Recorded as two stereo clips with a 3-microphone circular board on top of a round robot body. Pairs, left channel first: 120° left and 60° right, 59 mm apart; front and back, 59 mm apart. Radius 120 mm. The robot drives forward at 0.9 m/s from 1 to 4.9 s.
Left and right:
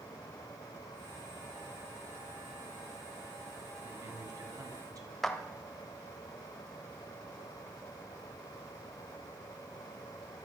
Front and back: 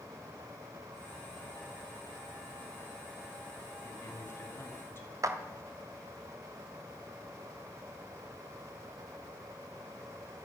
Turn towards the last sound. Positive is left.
turn(degrees=-155)